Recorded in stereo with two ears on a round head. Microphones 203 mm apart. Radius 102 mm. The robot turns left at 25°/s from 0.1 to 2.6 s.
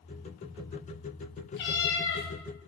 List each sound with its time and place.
1.6 s a cat meowing: 55° left (ahead or behind), 0.9 m; by 2.3 s 65° left (ahead or behind), 0.9 m